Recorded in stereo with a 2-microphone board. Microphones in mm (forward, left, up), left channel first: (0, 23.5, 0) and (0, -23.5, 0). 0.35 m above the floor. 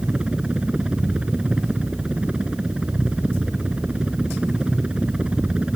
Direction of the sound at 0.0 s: 20° right (ahead or behind).